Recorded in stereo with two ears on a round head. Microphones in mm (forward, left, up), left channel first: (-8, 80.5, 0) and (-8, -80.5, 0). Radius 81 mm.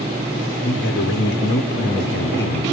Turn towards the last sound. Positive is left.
turn(degrees=60)  # may be behind; listen again after turning